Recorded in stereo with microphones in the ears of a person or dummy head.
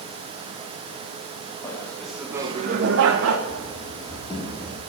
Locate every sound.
1.6 s laughter: 15° left (ahead or behind), 1.8 m; by 3.4 s 90° right, 1.3 m
3.5 s running footsteps: centre (ahead or behind), 2.5 m; by 4.8 s 30° left (ahead or behind), 3 m